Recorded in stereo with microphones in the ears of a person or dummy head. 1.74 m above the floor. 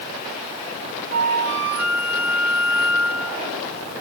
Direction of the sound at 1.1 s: 80° left.